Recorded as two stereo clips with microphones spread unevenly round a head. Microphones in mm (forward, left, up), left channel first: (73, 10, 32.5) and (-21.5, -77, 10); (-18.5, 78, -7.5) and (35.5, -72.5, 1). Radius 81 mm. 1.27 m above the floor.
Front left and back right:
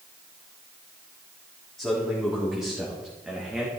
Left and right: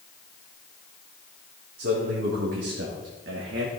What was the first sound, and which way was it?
A man speaking, 45° right.